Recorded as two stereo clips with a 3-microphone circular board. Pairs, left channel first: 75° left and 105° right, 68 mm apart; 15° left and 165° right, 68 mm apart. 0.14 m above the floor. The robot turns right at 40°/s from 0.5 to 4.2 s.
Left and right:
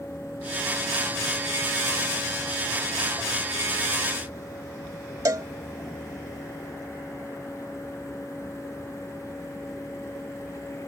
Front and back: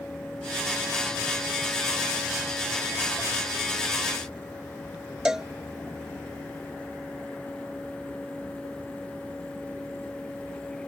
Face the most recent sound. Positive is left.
turn(degrees=-85)